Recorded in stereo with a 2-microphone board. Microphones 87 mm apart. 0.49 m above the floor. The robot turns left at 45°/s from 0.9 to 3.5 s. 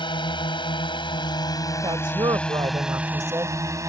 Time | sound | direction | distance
0.0 | a drone | 65° left (ahead or behind) | ?
1.8 | a woman speaking | 70° right | ?